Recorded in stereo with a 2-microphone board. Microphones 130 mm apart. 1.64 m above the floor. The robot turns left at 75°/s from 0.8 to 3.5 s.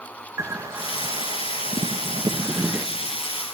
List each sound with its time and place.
0.4 s a bird: 25° right, 1.2 m; by 2.9 s straight behind, 1.2 m